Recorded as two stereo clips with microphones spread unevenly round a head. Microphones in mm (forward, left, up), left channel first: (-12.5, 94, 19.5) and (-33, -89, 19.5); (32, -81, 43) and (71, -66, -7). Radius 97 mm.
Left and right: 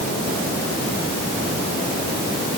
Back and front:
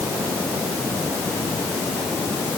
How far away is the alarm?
I don't hear an alarm.